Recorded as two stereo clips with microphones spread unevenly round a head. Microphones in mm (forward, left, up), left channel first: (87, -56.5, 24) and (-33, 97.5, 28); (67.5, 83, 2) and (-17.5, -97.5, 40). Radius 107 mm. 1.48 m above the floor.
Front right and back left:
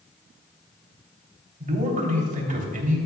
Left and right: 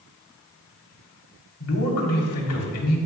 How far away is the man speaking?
About 3 m.